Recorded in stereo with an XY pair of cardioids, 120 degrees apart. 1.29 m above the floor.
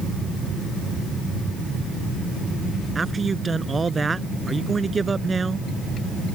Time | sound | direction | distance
3.0 | a man speaking | 25° right | ?